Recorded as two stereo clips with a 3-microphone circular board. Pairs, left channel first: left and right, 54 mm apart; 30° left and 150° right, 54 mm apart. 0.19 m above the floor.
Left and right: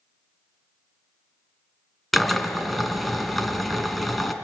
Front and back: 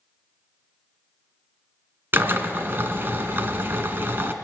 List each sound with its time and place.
2.1 s a drill: 175° left, 1.7 m